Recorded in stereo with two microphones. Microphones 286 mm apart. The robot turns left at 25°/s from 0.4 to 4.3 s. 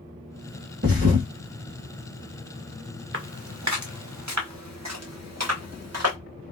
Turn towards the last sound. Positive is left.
turn(degrees=-60)  # may be behind; listen again after turning